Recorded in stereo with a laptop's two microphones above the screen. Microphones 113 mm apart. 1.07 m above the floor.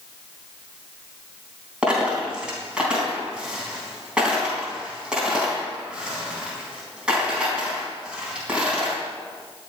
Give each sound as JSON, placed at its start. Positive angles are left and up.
{"t": 1.8, "sound": "a dropped coin", "side_deg": -10, "distance_m": 3.5}